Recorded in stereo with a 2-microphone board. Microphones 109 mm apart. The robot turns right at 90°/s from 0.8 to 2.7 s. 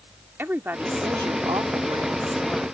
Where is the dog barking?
No dog barking in this recording.